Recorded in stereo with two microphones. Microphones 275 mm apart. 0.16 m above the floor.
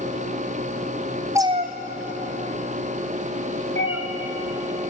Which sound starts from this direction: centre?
A cat meowing, at 1.4 s.